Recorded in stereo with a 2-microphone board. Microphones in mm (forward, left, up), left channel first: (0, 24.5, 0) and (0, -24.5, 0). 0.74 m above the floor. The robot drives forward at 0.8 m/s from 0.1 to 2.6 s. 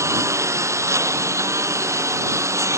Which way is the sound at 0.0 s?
80° right.